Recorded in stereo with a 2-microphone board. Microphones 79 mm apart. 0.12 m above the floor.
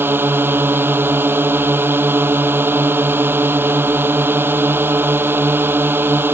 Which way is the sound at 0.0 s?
30° right (ahead or behind).